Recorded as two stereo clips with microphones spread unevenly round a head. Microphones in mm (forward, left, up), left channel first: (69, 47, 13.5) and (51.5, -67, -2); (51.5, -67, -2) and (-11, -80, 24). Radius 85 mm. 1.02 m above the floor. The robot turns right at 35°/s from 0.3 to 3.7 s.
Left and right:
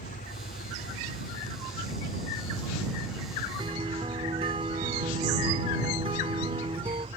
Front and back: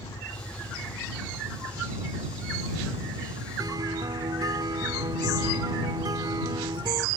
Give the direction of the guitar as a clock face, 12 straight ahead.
5 o'clock.